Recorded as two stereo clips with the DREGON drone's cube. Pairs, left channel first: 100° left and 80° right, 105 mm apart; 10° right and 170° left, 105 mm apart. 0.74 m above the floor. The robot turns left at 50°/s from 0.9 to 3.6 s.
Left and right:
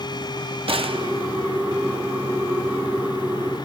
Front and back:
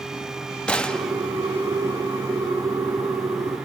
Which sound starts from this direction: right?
A gunshot, at 0.7 s.